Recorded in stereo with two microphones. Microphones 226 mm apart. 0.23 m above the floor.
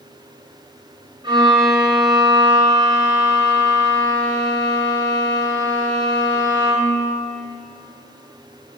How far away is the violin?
About 2 m.